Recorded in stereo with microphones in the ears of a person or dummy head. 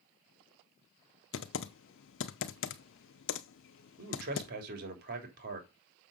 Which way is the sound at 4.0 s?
55° right (ahead or behind).